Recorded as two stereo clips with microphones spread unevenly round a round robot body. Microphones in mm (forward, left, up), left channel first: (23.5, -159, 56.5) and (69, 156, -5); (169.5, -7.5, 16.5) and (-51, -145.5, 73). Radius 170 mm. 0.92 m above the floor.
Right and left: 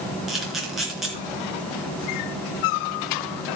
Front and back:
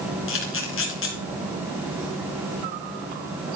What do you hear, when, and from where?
0.3 s a camera shutter: 10° right, 3.5 m